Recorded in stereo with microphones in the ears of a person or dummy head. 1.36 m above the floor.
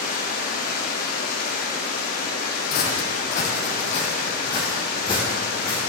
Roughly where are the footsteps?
Left.